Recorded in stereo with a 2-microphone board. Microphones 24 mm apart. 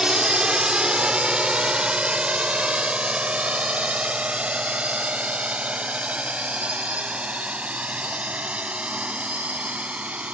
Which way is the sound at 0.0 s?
35° right (ahead or behind).